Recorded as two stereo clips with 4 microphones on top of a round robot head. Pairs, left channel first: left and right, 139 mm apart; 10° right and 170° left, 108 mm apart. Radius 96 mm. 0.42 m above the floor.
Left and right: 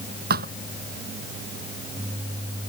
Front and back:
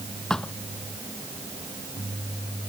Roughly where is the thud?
Right.